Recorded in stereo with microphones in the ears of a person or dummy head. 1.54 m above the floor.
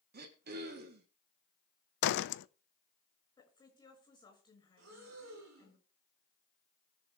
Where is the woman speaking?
20° left (ahead or behind), 6 m.